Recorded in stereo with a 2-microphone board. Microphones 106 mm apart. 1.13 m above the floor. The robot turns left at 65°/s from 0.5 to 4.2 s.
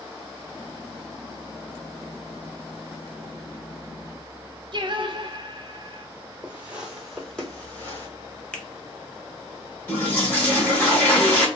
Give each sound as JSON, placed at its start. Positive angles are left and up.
{"t": 4.7, "sound": "singing", "side_deg": -50, "distance_m": 0.5}
{"t": 6.4, "sound": "footsteps", "side_deg": -20, "distance_m": 1.2}
{"t": 8.5, "sound": "a finger snap", "side_deg": 10, "distance_m": 0.6}
{"t": 9.9, "sound": "a toilet flushing", "side_deg": 15, "distance_m": 1.2}